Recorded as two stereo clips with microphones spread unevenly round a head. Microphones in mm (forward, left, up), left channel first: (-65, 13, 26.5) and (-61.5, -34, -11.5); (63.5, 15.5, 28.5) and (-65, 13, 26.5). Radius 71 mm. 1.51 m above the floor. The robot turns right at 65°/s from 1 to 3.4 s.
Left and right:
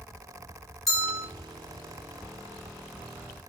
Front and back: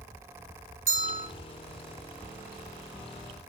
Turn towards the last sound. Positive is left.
turn(degrees=-30)